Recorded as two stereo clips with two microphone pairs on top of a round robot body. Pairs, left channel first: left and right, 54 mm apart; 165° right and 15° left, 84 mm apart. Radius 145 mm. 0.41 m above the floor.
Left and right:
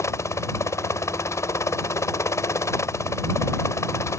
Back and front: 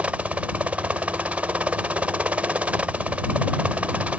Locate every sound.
0.0 s a helicopter: 85° left